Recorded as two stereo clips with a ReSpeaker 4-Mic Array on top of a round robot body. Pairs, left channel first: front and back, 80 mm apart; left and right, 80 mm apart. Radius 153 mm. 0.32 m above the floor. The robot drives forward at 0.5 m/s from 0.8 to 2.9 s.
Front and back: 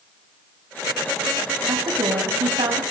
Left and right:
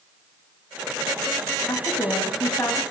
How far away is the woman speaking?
About 3.5 m.